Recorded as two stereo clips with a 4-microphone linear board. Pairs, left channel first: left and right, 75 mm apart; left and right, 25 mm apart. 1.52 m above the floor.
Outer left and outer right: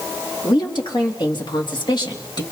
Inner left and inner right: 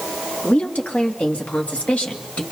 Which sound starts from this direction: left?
A woman speaking, at 0.4 s.